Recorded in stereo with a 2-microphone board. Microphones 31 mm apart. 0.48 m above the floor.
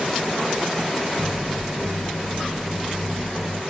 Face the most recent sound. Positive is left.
turn(degrees=-30)  # may be behind; listen again after turning